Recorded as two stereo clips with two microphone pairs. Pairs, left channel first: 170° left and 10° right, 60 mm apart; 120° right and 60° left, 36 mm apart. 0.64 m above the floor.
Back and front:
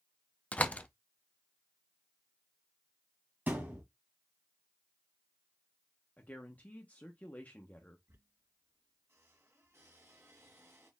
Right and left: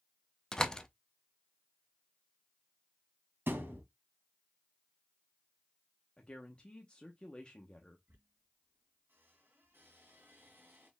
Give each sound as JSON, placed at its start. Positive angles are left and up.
{"t": 0.5, "sound": "a door slam", "azimuth_deg": -175, "distance_m": 0.5}
{"t": 3.5, "sound": "a thud", "azimuth_deg": 50, "distance_m": 1.5}
{"t": 6.2, "sound": "a woman speaking", "azimuth_deg": -160, "distance_m": 0.8}
{"t": 8.1, "sound": "a squeak", "azimuth_deg": 35, "distance_m": 1.8}